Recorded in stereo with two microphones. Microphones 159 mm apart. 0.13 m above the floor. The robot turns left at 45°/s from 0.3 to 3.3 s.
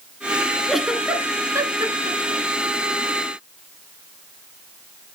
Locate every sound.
0.7 s a giggle: centre (ahead or behind), 1.0 m; by 2.4 s 35° right (ahead or behind), 1.0 m